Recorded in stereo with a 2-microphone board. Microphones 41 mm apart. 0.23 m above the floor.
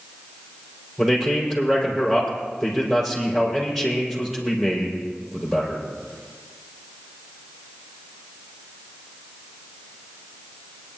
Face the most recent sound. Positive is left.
turn(degrees=-5)  # may be behind; listen again after turning